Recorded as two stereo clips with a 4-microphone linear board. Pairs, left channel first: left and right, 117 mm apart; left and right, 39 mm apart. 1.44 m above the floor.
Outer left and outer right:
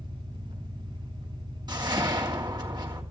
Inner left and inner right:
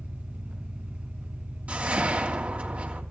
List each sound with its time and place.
0.0 s an engine running: 40° right (ahead or behind), 4.5 m
1.7 s a whoosh: 40° right (ahead or behind), 3 m